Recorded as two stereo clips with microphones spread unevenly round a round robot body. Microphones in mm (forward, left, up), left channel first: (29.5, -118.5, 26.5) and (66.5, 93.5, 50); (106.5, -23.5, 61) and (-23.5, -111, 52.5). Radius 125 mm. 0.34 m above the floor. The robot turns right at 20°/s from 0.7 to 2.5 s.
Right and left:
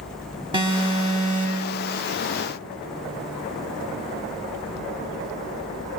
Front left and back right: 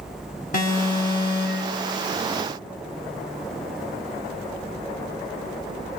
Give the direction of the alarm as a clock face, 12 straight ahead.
12 o'clock.